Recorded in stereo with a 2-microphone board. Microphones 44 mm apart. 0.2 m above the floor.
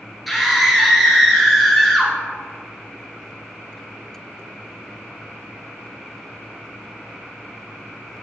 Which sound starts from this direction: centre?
A scream, at 0.3 s.